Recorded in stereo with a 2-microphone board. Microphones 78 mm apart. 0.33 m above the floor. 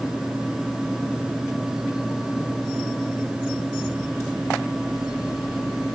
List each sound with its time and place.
Only background noise.